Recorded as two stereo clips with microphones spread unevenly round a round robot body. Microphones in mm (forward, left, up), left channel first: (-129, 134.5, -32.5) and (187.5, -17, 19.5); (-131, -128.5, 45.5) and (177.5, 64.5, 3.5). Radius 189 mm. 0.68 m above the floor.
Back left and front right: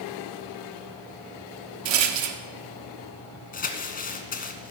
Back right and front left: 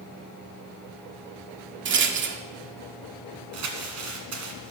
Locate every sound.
1.9 s a rattle: 25° right, 1.0 m
3.5 s crumpling: 85° left, 1.7 m